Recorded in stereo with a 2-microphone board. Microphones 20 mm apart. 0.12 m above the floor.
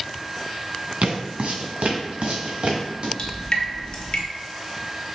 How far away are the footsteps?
About 1.1 m.